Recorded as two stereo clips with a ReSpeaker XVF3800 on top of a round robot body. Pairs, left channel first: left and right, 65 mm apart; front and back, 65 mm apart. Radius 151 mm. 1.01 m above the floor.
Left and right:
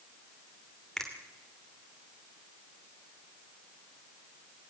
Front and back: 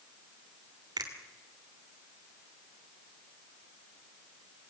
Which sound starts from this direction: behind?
A finger snap, at 1.0 s.